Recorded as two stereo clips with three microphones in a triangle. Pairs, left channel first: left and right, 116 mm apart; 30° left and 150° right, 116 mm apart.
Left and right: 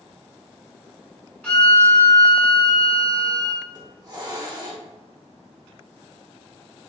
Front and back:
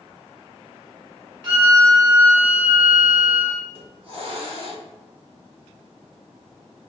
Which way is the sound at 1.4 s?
175° left.